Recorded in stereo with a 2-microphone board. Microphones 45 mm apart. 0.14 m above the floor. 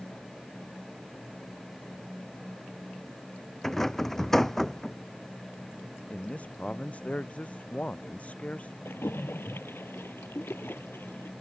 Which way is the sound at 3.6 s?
10° left (ahead or behind).